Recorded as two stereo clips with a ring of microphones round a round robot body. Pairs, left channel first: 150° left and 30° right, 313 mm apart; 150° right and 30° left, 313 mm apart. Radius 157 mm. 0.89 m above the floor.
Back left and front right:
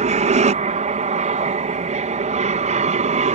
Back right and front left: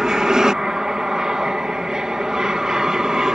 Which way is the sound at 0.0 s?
55° right.